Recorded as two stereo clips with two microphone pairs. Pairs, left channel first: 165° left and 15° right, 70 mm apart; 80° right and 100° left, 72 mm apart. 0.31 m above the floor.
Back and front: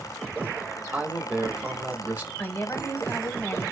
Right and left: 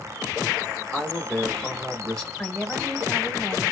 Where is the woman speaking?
155° right, 1.8 m.